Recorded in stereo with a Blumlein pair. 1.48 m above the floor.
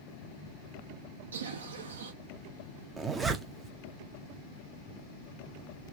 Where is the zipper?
15° right, 0.5 m.